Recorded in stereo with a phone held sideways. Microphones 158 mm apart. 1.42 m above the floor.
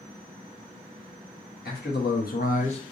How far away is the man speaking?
About 1.1 m.